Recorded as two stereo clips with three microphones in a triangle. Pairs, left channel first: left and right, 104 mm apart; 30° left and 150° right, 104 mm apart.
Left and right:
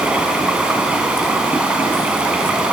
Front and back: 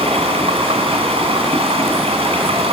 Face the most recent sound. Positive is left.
turn(degrees=-170)